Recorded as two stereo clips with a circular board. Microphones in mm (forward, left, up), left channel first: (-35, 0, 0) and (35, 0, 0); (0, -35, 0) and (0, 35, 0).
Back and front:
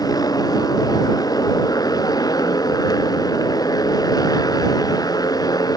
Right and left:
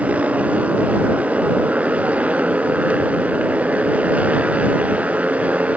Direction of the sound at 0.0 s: 160° left.